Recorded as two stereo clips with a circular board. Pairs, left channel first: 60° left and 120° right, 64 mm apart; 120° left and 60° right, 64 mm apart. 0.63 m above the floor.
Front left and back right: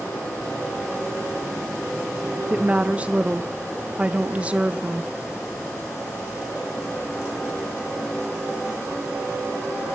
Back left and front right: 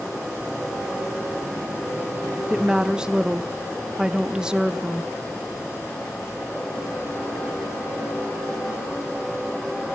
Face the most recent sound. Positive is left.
turn(degrees=-115)